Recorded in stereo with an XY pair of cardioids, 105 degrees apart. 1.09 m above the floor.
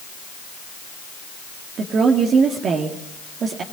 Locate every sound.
1.8 s a woman speaking: 60° right, 1.8 m